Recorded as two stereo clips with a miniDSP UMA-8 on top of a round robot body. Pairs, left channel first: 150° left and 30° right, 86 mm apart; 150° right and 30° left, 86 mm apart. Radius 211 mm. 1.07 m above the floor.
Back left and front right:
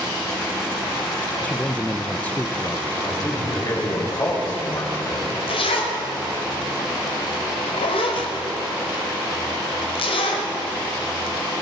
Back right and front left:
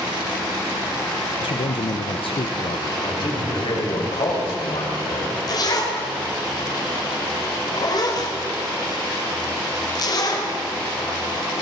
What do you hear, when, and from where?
1.4 s a man speaking: 135° right, 0.6 m
3.0 s a man speaking: 165° right, 6 m
5.5 s a zipper: 165° left, 1.9 m